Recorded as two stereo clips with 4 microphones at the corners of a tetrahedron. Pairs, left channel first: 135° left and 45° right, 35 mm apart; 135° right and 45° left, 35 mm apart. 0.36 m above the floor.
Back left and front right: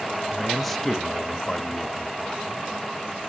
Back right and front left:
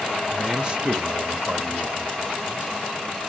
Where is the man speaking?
15° left, 0.8 m; by 2.7 s 75° left, 1.6 m.